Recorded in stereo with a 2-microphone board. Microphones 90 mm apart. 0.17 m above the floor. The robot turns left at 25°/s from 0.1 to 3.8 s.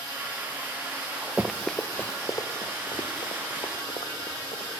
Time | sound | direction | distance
1.4 | running footsteps | 15° right (ahead or behind) | 0.7 m